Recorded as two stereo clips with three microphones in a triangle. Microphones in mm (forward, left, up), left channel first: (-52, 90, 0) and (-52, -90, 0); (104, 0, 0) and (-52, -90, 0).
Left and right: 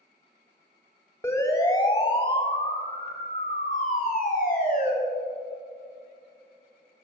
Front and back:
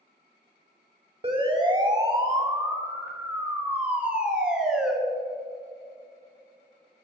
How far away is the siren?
About 2.5 m.